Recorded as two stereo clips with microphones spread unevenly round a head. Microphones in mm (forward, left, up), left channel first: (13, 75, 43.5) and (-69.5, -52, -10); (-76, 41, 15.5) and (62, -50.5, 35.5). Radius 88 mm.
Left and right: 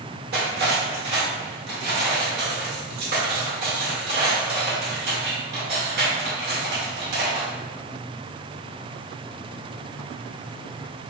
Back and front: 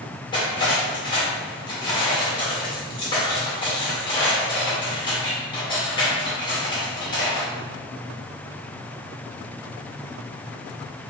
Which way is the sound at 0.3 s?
150° right.